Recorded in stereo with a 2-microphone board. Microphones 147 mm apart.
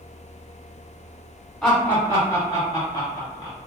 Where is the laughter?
10° left (ahead or behind), 1.0 m; by 3.6 s 30° left (ahead or behind), 1.3 m.